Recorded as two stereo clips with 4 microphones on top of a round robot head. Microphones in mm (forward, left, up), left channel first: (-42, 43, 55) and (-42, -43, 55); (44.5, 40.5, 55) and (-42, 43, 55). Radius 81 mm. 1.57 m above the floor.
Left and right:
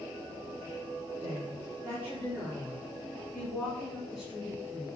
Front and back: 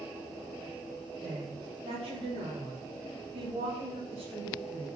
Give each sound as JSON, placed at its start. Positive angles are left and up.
{"t": 1.2, "sound": "a woman speaking", "azimuth_deg": -155, "distance_m": 4.0}